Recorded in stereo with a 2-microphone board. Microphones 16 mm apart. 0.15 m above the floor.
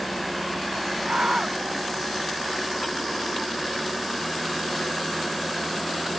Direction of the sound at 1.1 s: 75° right (ahead or behind).